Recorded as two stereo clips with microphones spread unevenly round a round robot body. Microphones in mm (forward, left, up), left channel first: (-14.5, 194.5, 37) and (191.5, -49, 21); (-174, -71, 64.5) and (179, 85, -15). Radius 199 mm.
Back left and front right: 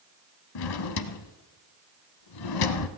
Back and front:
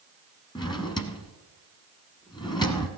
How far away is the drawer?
About 0.9 m.